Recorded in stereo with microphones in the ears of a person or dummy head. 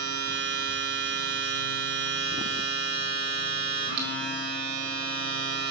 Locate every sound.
0.0 s a machine running: 55° right (ahead or behind), 1.5 m